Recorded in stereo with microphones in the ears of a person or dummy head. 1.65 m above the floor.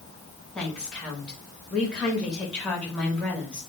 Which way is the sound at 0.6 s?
Centre (ahead or behind).